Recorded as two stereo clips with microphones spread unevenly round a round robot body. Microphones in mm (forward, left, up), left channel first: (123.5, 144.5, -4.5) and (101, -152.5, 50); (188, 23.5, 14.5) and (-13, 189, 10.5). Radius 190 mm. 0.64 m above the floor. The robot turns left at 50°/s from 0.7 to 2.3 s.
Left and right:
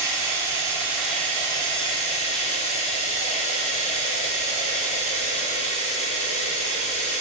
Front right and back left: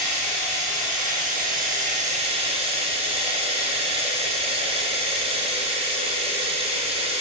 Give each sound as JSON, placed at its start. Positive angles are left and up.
{"t": 0.0, "sound": "running water", "azimuth_deg": 175, "distance_m": 0.9}